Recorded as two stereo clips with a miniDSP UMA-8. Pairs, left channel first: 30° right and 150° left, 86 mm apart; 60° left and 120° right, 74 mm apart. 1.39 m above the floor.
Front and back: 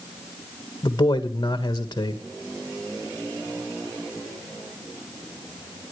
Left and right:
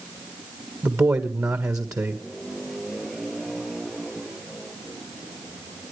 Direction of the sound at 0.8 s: 75° right.